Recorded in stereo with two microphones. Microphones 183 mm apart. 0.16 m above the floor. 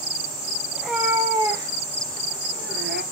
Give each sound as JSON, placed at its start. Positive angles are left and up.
{"t": 0.7, "sound": "a cat meowing", "side_deg": -5, "distance_m": 2.5}